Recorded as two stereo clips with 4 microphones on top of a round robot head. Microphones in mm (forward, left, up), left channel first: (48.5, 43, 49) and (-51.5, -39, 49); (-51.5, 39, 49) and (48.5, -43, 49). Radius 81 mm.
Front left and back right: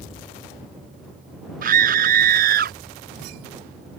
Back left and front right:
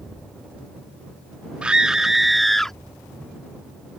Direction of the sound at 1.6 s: 120° right.